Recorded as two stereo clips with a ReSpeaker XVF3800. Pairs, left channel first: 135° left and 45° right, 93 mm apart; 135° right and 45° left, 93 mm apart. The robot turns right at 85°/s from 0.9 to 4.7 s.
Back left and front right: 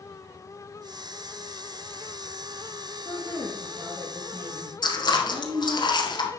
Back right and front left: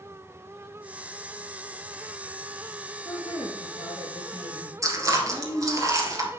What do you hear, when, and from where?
3.0 s a woman speaking: 175° left, 3 m; by 5.8 s 45° right, 3 m
4.8 s chewing: 95° left, 1.6 m